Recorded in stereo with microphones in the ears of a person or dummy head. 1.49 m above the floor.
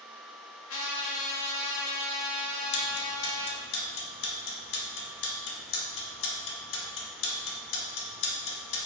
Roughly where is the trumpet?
Left.